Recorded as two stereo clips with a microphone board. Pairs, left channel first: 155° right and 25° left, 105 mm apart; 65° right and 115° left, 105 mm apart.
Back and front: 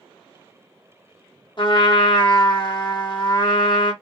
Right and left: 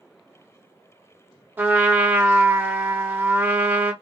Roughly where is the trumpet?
Behind.